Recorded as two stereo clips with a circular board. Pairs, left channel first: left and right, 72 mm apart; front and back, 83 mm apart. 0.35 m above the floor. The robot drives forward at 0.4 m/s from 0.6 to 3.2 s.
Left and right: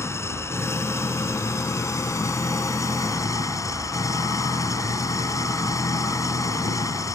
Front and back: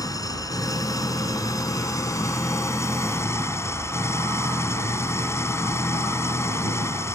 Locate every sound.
0.0 s an engine running: 40° left; by 7.2 s 55° left